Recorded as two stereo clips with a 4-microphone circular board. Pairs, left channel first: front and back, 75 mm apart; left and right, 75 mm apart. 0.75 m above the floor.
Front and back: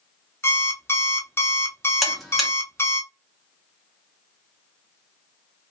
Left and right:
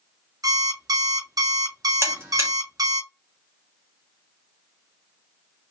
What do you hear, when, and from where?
0.4 s an alarm clock: 55° right, 0.6 m
2.0 s a buzzer: 90° right, 1.1 m